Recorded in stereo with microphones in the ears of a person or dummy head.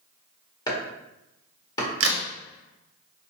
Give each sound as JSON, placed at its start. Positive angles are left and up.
{"t": 0.7, "sound": "chopping", "side_deg": 20, "distance_m": 0.9}
{"t": 2.0, "sound": "a crack", "side_deg": -70, "distance_m": 0.6}